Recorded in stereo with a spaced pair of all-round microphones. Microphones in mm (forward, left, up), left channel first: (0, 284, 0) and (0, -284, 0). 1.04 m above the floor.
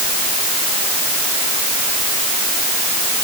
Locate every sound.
Only background noise.